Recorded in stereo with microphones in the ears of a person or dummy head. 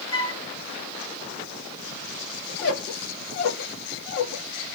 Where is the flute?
30° left (ahead or behind), 1.3 m.